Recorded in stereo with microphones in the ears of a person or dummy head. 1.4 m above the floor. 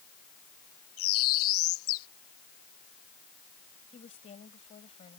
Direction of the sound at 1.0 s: 80° left.